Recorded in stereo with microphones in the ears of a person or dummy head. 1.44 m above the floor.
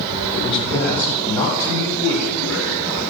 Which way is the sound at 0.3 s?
35° left (ahead or behind).